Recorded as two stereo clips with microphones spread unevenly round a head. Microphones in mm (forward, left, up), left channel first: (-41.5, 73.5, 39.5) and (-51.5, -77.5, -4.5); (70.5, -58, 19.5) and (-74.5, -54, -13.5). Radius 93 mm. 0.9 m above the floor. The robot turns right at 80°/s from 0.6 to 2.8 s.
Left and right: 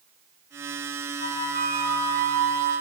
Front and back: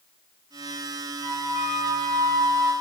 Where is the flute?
135° left, 1.5 m; by 2.7 s 105° right, 1.5 m.